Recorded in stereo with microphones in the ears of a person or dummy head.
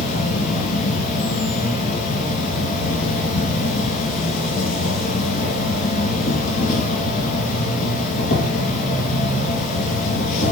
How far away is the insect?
About 4.5 m.